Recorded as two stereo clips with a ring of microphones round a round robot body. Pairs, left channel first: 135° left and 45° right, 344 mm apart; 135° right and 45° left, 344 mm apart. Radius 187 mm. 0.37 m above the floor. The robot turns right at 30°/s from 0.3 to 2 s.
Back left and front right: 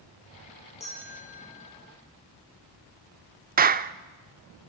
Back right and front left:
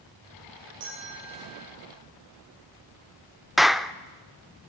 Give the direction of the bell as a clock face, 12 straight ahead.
10 o'clock.